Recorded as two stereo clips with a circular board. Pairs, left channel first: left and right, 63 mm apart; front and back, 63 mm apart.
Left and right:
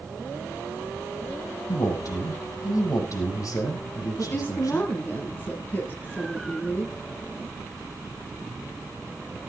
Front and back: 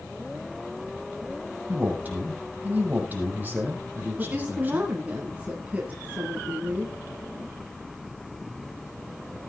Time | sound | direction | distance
1.7 | a man speaking | 115° left | 6.5 m
4.2 | a woman speaking | 125° left | 1.9 m